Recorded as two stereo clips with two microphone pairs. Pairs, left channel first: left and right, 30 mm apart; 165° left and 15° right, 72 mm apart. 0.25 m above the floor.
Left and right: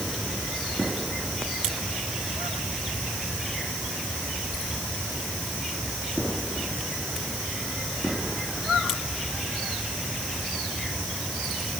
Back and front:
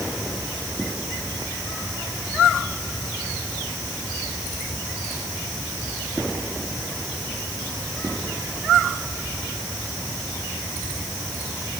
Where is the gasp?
I don't hear a gasp.